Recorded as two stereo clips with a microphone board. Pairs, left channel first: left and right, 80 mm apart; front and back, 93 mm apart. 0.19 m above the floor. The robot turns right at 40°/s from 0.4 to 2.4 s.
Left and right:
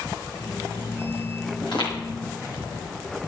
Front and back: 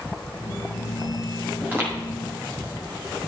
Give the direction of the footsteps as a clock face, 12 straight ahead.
8 o'clock.